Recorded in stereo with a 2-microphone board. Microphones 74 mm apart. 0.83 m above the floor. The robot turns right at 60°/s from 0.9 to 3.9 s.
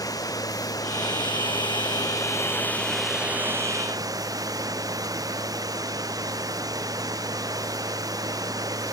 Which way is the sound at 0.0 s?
50° left.